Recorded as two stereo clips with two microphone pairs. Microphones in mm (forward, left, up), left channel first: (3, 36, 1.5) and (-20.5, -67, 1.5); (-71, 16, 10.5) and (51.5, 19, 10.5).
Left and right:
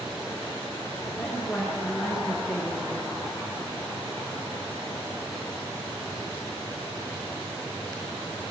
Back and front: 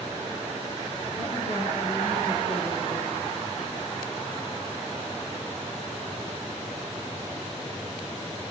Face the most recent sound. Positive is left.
turn(degrees=170)